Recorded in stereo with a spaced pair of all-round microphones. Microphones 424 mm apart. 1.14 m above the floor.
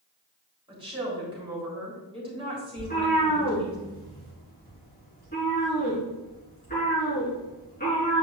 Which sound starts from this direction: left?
A cat meowing, at 2.8 s.